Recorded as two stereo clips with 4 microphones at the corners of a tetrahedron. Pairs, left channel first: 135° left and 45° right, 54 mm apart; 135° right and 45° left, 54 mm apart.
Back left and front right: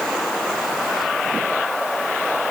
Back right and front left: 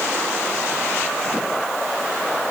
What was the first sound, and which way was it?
Only background noise.